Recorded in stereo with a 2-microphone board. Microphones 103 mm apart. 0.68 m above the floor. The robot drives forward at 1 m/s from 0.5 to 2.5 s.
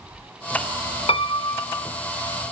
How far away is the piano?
About 0.6 m.